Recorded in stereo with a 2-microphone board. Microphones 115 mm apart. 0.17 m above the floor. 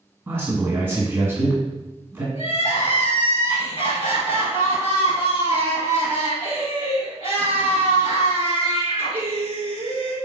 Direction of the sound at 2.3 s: 55° left (ahead or behind).